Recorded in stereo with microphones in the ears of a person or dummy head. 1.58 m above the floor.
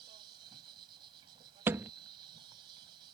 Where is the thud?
15° right (ahead or behind).